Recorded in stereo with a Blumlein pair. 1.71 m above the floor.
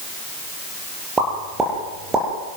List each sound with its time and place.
1.2 s a pop: 15° right, 8 m